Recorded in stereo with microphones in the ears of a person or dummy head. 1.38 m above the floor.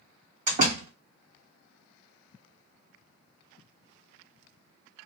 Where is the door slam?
45° right (ahead or behind), 1.8 m.